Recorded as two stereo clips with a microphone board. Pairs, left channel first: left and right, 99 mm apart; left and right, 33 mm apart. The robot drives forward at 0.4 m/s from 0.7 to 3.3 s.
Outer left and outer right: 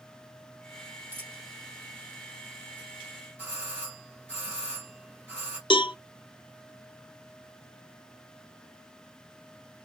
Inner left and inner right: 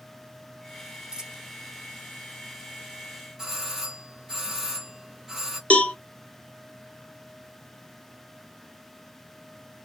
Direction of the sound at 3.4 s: 15° right (ahead or behind).